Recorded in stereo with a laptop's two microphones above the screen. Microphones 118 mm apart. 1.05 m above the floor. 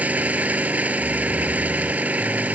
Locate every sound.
0.0 s an engine running: 15° right (ahead or behind)